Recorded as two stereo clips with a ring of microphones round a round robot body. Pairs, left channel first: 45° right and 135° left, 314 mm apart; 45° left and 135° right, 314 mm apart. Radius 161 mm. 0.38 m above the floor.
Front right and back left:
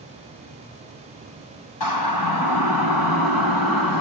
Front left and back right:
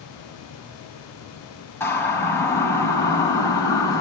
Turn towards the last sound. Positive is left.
turn(degrees=-35)